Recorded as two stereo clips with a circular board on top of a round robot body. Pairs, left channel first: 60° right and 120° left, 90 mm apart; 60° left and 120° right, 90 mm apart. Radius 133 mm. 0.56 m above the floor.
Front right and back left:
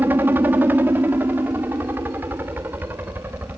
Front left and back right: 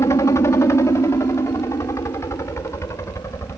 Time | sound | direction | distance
0.0 | a helicopter | 70° left | ?